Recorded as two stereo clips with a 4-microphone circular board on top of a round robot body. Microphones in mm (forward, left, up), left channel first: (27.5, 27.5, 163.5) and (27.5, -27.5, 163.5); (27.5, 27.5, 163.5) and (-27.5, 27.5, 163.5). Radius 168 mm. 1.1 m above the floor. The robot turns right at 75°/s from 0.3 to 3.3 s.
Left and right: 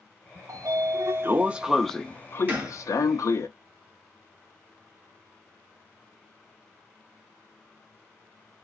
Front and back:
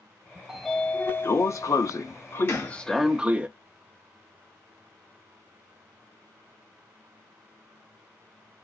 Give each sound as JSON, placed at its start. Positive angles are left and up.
{"t": 0.5, "sound": "a sliding door", "azimuth_deg": -100, "distance_m": 0.5}
{"t": 2.5, "sound": "a gunshot", "azimuth_deg": -30, "distance_m": 1.4}